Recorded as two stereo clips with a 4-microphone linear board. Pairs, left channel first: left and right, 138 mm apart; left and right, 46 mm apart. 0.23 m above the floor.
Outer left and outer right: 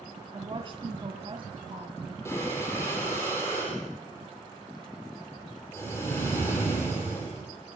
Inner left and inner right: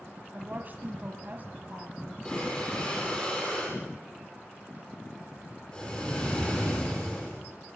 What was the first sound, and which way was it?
A woman speaking, 40° right (ahead or behind).